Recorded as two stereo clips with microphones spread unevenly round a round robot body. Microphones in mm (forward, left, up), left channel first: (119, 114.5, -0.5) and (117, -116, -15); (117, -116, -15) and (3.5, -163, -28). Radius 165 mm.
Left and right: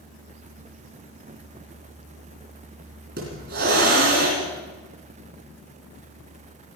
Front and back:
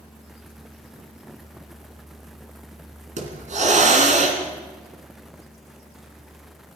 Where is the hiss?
150° right, 2.5 m.